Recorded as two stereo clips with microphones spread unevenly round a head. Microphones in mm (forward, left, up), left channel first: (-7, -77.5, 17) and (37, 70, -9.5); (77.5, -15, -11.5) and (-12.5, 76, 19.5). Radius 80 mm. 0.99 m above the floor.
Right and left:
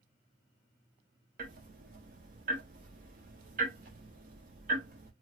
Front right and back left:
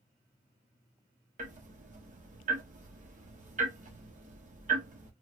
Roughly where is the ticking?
Behind left.